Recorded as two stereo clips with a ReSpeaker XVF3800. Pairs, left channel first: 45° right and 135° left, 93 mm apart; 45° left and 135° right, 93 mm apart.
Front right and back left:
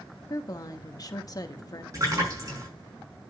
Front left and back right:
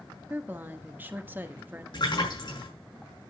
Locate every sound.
0.3 s a woman speaking: 75° right, 1.1 m
1.9 s a splash: 80° left, 5.5 m